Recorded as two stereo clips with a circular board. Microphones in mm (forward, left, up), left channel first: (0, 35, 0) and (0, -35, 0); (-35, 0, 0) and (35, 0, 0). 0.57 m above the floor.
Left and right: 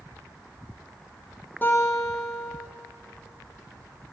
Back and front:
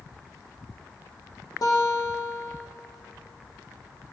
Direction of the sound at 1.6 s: 150° left.